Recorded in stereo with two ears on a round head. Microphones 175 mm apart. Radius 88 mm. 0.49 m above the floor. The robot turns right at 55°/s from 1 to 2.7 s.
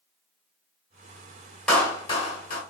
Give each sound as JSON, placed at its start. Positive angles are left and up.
{"t": 1.7, "sound": "a clap", "azimuth_deg": 5, "distance_m": 1.5}